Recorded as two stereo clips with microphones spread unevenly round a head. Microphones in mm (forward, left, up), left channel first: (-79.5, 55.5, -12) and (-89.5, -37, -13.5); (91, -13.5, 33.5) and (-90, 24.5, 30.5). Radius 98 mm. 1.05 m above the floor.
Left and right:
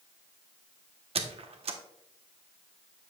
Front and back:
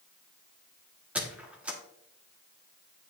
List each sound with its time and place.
1.1 s a squeak: 110° right, 1.1 m